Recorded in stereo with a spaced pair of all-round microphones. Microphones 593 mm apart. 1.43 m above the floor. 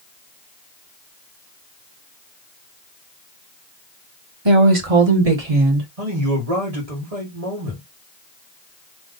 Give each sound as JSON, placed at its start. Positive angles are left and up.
{"t": 4.5, "sound": "a woman speaking", "side_deg": -45, "distance_m": 1.1}
{"t": 6.0, "sound": "a man speaking", "side_deg": -75, "distance_m": 1.8}